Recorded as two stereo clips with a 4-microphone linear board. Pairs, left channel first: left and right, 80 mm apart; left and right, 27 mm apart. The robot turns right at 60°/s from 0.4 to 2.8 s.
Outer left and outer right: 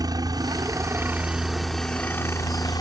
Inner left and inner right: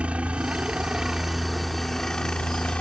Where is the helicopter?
75° right; by 2.8 s 70° left.